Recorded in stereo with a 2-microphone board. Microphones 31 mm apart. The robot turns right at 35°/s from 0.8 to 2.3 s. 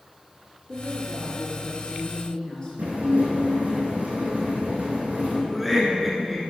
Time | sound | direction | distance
0.7 | a woman speaking | 45° left | 1.9 m
2.8 | dishes clattering | 65° right (ahead or behind) | 3 m
5.5 | laughter | centre (ahead or behind) | 1.2 m